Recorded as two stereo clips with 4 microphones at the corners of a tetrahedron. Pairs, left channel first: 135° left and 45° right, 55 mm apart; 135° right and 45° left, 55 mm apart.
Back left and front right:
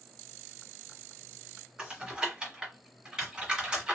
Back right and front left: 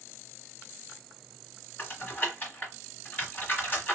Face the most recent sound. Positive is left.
turn(degrees=-110)